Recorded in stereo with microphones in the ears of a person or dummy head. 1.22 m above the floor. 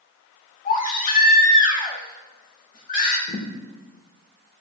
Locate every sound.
0.7 s a baby crying: 45° left (ahead or behind), 1.9 m
3.3 s a thud: 40° left (ahead or behind), 1.9 m